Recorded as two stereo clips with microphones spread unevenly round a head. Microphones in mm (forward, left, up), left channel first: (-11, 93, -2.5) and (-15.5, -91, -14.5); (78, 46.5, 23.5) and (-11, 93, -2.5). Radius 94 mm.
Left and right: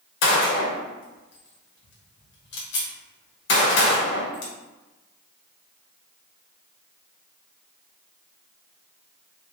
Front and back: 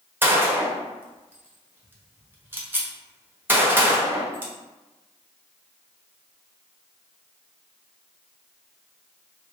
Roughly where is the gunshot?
Left.